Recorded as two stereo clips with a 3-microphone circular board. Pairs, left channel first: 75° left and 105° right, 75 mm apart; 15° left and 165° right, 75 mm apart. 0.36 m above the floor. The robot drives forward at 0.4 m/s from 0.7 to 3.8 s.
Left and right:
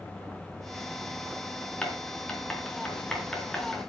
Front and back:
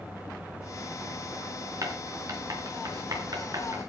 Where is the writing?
150° left, 4 m; by 3.9 s 155° left, 5 m.